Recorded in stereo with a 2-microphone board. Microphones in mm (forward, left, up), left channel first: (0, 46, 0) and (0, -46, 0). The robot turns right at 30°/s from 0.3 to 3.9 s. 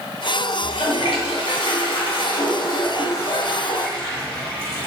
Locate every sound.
0.6 s a toilet flushing: 75° left, 1.2 m; by 4.9 s 170° left, 1.2 m